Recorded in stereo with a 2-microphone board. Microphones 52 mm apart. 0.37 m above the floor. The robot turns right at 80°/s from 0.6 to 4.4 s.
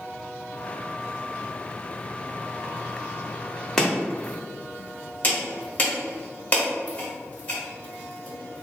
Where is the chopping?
5° left (ahead or behind), 0.8 m; by 8.6 s 30° left (ahead or behind), 0.8 m.